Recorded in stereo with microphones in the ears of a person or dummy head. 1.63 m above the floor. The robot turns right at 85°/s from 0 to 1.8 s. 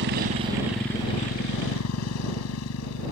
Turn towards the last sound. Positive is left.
turn(degrees=90)